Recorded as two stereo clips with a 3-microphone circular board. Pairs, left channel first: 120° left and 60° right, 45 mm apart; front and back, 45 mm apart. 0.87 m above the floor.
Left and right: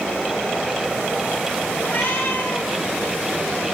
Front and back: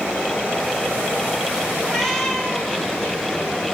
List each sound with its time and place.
1.8 s a cat meowing: 85° left, 1.2 m